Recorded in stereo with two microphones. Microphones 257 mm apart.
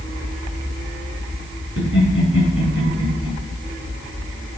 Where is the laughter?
60° right (ahead or behind), 3.5 m.